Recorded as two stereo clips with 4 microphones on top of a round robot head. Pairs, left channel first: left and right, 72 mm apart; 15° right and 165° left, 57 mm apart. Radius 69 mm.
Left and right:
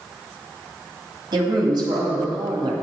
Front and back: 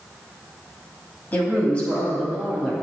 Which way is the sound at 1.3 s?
75° right.